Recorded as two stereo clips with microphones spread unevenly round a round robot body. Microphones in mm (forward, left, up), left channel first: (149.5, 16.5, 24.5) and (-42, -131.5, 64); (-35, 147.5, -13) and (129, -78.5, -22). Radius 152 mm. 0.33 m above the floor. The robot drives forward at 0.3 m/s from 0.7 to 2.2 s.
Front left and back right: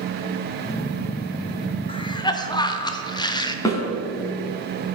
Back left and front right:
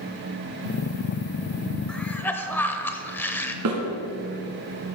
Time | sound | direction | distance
1.9 | a cough | 35° left | 0.9 m
3.6 | a snare drum | 35° right | 2.5 m